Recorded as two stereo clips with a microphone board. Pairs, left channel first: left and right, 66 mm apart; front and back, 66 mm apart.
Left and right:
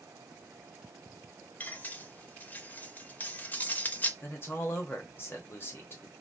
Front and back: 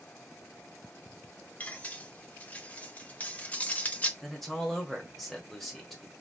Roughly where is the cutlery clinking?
Ahead left.